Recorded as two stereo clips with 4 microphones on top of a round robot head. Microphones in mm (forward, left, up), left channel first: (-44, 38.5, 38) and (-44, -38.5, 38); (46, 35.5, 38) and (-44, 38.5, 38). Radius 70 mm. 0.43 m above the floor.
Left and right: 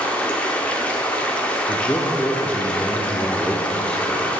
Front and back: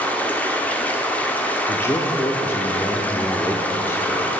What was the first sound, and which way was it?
Running water, 40° left.